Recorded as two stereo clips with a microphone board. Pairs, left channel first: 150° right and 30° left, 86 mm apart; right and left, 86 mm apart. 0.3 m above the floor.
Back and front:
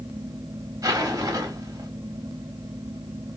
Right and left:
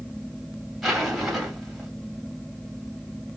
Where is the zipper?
5° left, 0.9 m.